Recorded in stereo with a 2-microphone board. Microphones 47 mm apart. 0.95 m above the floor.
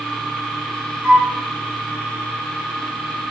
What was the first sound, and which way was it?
A flute, 20° right (ahead or behind).